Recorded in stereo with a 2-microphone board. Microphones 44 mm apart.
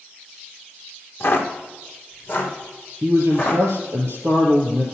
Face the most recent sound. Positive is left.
turn(degrees=-65)  # may be behind; listen again after turning